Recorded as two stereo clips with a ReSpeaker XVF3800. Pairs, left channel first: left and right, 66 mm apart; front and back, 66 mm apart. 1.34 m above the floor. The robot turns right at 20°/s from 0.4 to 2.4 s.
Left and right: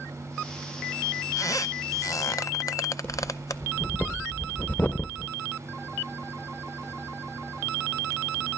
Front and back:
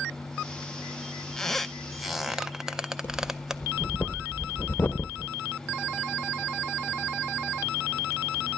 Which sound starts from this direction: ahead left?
Breathing, at 3.0 s.